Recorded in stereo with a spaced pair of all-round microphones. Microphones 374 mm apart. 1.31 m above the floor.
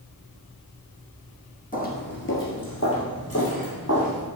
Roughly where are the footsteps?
Left.